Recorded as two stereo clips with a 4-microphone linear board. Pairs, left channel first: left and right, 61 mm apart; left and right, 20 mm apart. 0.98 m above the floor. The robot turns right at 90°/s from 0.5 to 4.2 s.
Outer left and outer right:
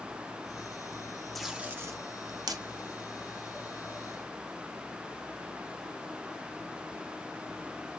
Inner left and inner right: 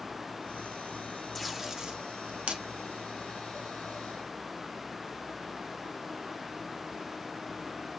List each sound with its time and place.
1.4 s tape being pulled: centre (ahead or behind), 0.5 m; by 2.6 s 65° right (ahead or behind), 0.5 m